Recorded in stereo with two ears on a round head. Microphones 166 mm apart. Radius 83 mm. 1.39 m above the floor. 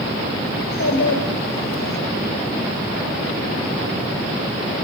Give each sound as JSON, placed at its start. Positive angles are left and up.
{"t": 0.6, "sound": "a child speaking", "side_deg": 80, "distance_m": 4.0}